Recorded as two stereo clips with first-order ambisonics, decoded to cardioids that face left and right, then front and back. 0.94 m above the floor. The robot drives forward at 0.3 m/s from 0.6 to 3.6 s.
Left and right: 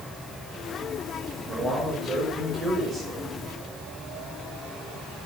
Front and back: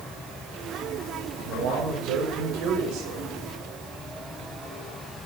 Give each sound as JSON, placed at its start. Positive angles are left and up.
{"t": 1.4, "sound": "a man speaking", "azimuth_deg": -155, "distance_m": 4.5}